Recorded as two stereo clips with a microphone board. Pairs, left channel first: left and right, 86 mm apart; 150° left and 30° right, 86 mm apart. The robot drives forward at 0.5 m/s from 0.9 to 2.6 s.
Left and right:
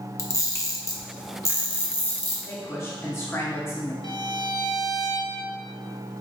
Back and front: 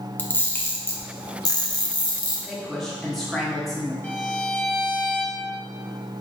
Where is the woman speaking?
55° left, 1.0 m; by 3.9 s 65° left, 0.9 m.